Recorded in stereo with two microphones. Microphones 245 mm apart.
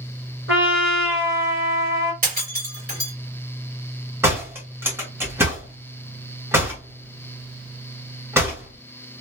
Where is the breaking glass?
35° right (ahead or behind), 2.5 m.